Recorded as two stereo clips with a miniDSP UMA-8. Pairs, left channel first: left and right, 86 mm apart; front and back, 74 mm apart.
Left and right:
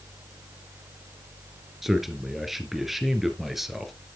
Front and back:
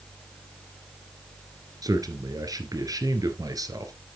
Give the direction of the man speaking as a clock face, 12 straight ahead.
6 o'clock.